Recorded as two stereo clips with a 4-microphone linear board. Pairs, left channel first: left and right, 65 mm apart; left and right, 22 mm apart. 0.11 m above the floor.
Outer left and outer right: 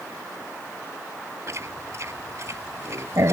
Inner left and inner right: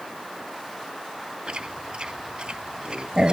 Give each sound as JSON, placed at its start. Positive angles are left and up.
{"t": 1.5, "sound": "chewing", "side_deg": -50}